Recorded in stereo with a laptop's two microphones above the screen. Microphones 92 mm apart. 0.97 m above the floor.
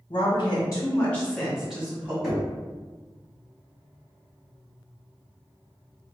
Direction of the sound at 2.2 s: 5° right (ahead or behind).